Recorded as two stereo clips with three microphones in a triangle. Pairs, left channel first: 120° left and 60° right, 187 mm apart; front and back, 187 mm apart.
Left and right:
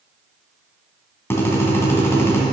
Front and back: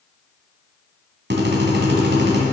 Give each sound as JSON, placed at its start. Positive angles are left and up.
{"t": 1.3, "sound": "a drill", "azimuth_deg": -165, "distance_m": 2.0}